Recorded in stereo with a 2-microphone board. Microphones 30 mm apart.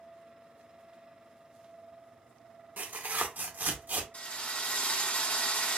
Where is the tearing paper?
80° right, 0.9 m.